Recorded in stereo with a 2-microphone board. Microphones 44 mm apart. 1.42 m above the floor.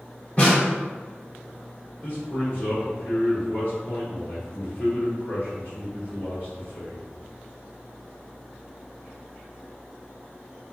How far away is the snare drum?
About 1.2 m.